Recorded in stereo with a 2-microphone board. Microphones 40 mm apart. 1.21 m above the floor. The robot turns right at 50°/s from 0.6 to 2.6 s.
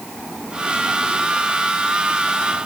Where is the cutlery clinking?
No cutlery clinking in this recording.